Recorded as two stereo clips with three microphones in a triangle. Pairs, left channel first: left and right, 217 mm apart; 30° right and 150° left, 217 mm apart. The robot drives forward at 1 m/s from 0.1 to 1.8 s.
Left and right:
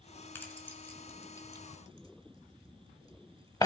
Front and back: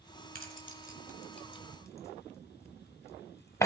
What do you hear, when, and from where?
0.3 s keys jangling: 10° left, 2 m; by 3.7 s 35° left, 0.9 m